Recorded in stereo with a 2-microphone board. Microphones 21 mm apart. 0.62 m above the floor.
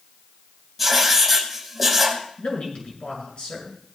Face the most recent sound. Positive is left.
turn(degrees=65)  # may be behind; listen again after turning